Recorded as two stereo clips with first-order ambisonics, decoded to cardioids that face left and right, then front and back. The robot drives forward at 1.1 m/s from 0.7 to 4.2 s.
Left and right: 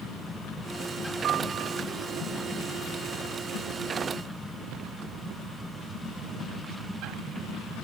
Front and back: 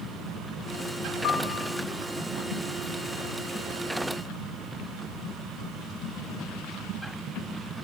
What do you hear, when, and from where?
1.2 s a piano: 40° right, 3 m; by 1.8 s 45° right, 2.5 m